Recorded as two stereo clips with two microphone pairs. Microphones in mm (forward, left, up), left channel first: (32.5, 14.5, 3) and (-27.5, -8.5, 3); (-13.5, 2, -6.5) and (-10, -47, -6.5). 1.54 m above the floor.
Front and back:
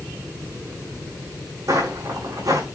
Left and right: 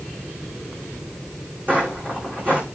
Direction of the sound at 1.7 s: 135° right.